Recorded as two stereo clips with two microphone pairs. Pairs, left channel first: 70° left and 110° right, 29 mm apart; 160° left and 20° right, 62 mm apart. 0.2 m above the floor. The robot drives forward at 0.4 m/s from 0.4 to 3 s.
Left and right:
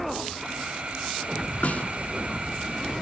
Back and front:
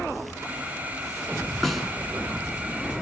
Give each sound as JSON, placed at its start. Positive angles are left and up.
{"t": 1.6, "sound": "a snare drum", "azimuth_deg": 70, "distance_m": 3.0}